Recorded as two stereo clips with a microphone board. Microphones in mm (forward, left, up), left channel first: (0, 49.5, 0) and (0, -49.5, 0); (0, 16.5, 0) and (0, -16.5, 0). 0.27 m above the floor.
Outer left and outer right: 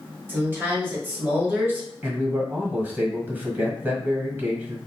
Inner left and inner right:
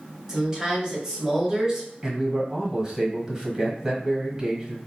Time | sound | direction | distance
0.3 | a woman speaking | 20° right (ahead or behind) | 1.1 m
2.0 | a man speaking | 20° right (ahead or behind) | 1.2 m